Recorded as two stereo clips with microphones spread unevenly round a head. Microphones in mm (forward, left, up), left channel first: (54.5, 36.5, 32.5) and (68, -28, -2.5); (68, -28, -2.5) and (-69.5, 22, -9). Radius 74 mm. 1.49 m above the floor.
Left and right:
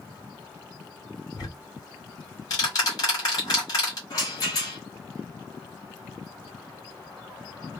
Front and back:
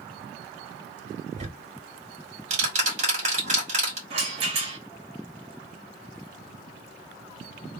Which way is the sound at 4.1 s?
110° left.